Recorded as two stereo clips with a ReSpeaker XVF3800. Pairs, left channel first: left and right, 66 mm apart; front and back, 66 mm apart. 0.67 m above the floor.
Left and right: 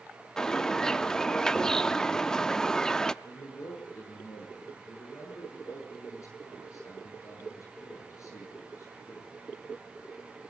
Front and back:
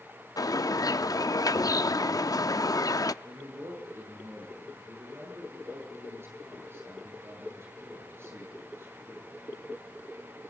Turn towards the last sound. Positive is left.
turn(degrees=130)